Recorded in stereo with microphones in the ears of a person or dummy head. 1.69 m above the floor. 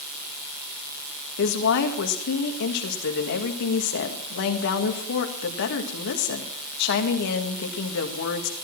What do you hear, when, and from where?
1.4 s a woman speaking: 65° left (ahead or behind), 1.9 m